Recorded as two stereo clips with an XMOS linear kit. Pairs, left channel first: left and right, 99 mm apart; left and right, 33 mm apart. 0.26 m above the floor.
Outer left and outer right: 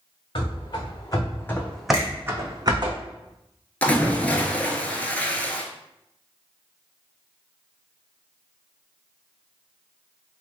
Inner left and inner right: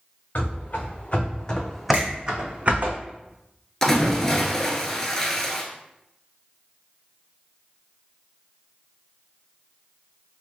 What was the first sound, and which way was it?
Running footsteps, 55° left (ahead or behind).